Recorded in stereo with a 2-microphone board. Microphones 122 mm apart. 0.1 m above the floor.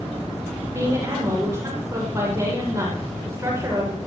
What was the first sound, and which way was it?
A woman speaking, 25° right (ahead or behind).